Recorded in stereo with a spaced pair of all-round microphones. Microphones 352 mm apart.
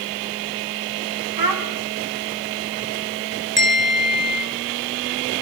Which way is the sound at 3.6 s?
30° right (ahead or behind).